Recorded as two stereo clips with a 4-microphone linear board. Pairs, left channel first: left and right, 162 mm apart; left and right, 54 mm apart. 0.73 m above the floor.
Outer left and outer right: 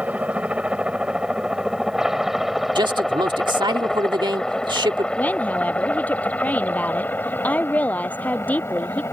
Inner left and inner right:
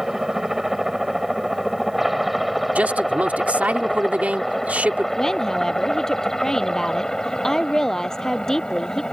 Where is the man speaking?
30° right (ahead or behind).